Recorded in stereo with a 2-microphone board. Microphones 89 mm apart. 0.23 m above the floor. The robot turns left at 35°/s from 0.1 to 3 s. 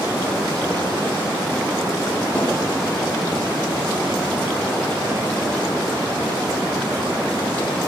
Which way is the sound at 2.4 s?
10° left (ahead or behind).